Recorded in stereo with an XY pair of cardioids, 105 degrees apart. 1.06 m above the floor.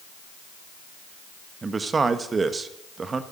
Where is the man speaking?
35° right, 1.2 m.